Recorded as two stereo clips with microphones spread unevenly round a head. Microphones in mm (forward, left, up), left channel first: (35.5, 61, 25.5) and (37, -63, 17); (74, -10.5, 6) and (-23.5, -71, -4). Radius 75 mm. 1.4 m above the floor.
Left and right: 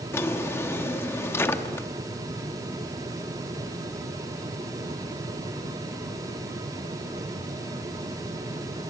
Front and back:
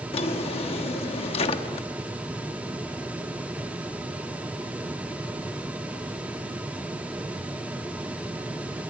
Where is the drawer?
25° left, 1.2 m.